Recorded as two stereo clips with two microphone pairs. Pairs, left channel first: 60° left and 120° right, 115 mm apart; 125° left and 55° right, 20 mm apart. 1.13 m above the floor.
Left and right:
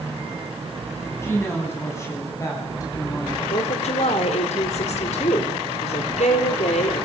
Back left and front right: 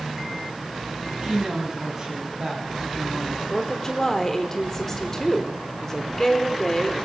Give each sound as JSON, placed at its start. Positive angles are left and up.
{"t": 1.2, "sound": "a woman speaking", "azimuth_deg": -5, "distance_m": 9.5}
{"t": 3.5, "sound": "a woman speaking", "azimuth_deg": 50, "distance_m": 4.0}